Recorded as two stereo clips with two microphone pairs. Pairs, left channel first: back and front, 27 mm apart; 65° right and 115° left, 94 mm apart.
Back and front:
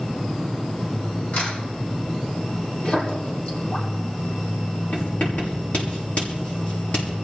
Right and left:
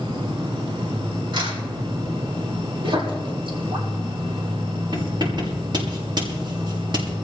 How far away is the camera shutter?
About 8 m.